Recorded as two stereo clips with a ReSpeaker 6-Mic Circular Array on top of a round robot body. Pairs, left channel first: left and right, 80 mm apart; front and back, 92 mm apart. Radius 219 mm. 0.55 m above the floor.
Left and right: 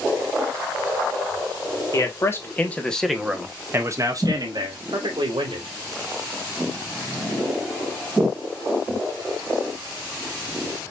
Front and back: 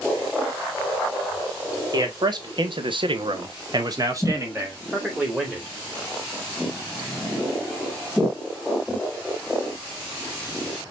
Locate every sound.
1.9 s a man speaking: 135° left, 1.8 m; by 5.7 s 105° right, 2.5 m